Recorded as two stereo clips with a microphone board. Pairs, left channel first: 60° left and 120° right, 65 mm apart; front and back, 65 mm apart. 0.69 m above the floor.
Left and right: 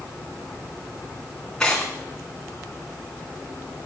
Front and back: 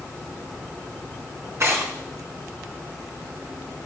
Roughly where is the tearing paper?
Behind left.